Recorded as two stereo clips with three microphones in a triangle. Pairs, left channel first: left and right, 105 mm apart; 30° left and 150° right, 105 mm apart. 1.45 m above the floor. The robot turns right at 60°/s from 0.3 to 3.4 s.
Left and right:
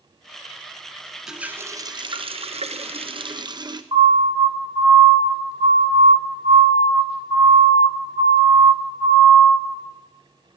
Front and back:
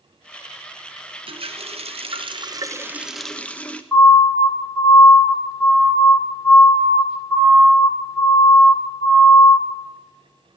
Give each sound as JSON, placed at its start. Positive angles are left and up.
{"t": 1.3, "sound": "a running tap", "azimuth_deg": -175, "distance_m": 0.9}
{"t": 3.9, "sound": "a siren", "azimuth_deg": -50, "distance_m": 5.5}